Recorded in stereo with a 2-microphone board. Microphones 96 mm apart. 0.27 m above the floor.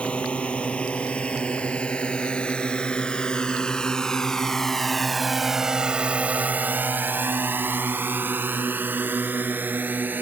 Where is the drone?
10° left (ahead or behind); by 10.2 s 20° right (ahead or behind).